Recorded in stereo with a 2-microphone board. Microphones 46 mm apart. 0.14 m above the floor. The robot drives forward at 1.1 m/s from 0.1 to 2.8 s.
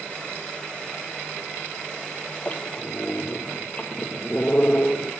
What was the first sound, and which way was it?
A squeak, 35° left (ahead or behind).